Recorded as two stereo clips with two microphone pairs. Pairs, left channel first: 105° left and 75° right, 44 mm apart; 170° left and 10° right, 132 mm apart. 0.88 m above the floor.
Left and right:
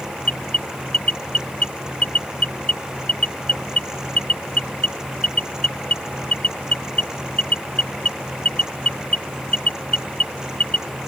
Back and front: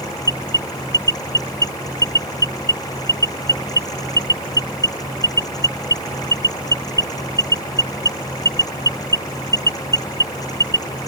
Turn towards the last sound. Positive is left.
turn(degrees=50)